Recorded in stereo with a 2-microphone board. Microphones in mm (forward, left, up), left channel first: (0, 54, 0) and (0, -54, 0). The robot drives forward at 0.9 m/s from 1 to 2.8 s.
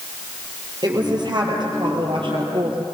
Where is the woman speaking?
40° right (ahead or behind), 4.5 m; by 2.9 s 55° right (ahead or behind), 3.5 m.